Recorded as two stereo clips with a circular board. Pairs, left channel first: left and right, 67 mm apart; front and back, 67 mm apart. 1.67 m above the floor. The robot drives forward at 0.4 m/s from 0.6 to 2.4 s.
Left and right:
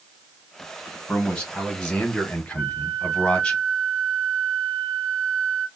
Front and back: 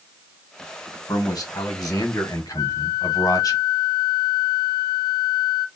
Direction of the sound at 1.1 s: 10° left.